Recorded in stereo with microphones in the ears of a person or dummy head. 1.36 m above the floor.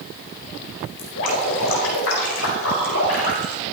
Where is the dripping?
70° left (ahead or behind), 4.5 m.